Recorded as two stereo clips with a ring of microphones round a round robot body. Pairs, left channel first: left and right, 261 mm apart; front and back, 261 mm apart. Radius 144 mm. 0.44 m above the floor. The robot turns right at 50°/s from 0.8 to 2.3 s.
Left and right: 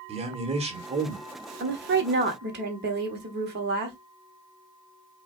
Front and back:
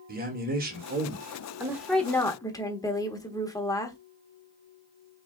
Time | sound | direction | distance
0.1 | a man speaking | 145° right | 1.5 m
1.6 | a woman speaking | 105° right | 1.2 m